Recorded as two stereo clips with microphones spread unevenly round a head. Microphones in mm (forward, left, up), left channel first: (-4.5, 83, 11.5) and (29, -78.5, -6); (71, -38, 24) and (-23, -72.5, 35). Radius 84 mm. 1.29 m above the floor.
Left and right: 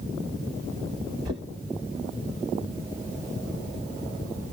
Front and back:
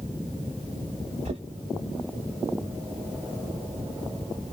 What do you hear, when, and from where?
1.2 s knocking: 145° right, 0.9 m